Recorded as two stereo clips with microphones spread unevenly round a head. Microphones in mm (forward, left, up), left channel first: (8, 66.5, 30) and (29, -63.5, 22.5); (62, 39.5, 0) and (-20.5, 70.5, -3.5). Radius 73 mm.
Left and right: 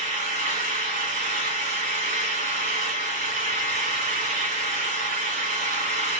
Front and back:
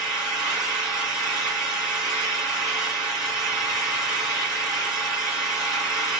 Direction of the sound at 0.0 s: 110° right.